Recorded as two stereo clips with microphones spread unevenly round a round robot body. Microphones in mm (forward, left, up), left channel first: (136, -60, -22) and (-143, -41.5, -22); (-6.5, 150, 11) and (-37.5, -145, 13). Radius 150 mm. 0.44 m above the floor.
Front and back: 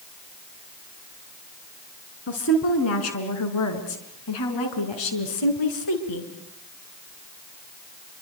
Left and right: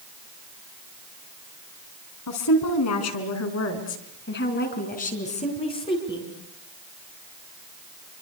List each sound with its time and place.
2.3 s a woman speaking: 50° left, 4 m; by 6.3 s 5° left, 4.5 m